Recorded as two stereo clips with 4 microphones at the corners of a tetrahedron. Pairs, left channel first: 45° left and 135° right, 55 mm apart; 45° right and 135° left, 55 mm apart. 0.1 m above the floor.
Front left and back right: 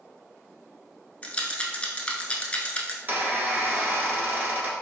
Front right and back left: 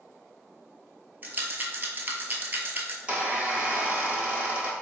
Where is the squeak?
170° right, 1.3 m.